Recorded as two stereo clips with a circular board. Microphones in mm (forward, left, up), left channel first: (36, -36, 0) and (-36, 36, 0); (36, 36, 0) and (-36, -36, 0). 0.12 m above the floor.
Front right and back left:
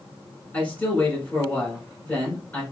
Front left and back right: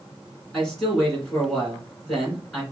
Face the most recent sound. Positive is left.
turn(degrees=-25)